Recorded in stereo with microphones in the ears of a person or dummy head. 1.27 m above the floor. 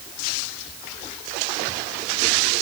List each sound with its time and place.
Only background noise.